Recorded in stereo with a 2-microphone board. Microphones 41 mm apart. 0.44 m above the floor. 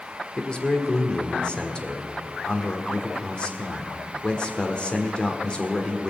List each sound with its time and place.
0.4 s a man speaking: 25° left (ahead or behind), 1.5 m